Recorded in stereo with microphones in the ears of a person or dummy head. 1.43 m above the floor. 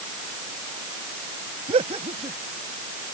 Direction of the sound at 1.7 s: 35° right (ahead or behind).